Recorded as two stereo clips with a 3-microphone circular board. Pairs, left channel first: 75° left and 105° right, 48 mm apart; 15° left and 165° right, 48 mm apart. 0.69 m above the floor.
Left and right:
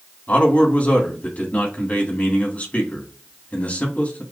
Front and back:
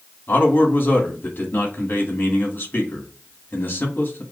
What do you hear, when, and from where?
0.3 s a man speaking: 35° left, 1.8 m